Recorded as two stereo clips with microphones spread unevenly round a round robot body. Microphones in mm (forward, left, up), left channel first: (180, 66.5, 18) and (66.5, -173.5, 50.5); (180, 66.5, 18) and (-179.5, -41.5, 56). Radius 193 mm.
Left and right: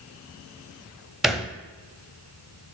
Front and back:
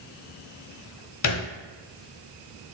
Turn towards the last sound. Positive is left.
turn(degrees=-25)